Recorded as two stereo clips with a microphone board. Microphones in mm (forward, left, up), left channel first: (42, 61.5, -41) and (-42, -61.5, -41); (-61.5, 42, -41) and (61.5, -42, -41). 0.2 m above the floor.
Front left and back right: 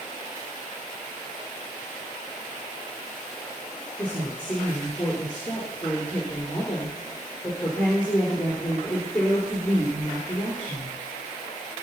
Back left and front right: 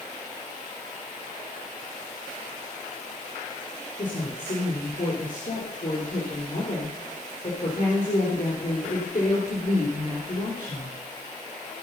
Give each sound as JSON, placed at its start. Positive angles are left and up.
{"t": 4.0, "sound": "a woman speaking", "azimuth_deg": 135, "distance_m": 3.0}